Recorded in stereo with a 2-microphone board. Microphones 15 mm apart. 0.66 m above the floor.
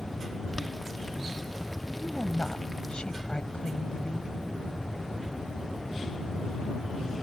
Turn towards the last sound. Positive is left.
turn(degrees=65)  # may be behind; listen again after turning